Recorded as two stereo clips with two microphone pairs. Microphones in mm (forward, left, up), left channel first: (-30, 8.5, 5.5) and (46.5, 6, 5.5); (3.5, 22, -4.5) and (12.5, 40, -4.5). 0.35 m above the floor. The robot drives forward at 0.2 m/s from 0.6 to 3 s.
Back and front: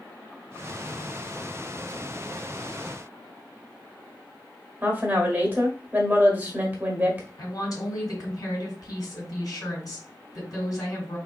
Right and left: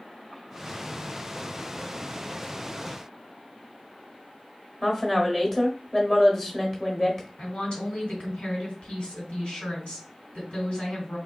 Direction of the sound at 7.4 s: 145° right.